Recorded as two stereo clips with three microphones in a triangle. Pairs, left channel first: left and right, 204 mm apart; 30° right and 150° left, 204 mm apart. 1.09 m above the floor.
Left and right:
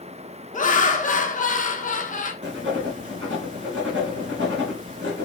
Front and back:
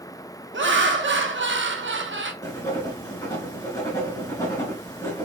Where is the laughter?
135° left, 0.9 m.